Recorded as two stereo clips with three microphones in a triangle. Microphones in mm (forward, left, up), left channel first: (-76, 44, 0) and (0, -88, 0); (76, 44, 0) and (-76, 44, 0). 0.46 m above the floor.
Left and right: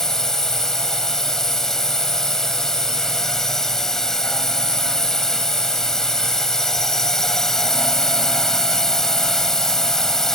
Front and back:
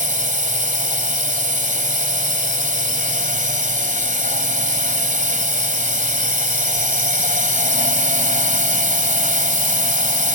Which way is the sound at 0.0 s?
155° right.